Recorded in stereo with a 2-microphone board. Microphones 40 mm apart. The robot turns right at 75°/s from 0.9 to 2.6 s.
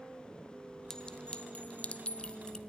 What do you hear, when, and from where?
0.9 s a clink: 15° left (ahead or behind), 0.7 m